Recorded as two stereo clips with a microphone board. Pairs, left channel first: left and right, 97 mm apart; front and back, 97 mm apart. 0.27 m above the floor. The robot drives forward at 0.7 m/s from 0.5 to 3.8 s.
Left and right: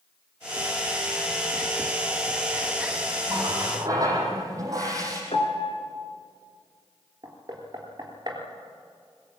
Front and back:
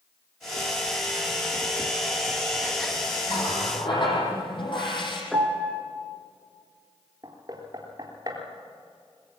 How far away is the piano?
About 2.5 m.